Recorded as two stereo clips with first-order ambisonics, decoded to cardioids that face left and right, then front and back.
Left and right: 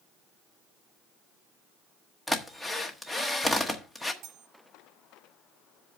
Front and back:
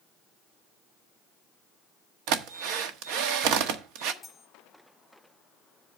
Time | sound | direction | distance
2.3 | a drill | 175° left | 1.1 m
4.2 | cutlery clinking | 80° right | 1.3 m